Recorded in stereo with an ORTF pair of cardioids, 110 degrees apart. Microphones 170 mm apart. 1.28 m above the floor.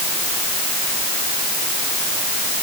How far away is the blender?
No blender in this recording.